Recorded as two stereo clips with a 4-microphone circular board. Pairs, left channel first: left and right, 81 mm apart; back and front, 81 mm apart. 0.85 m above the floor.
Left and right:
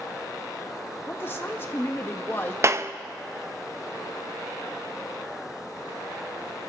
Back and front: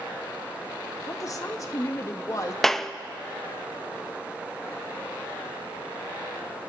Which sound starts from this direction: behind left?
A woman speaking, at 1.1 s.